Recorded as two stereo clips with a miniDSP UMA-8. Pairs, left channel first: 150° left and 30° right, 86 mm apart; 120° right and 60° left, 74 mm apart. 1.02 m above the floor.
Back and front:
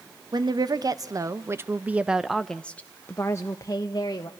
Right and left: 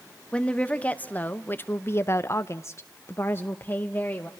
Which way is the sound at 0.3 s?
50° right.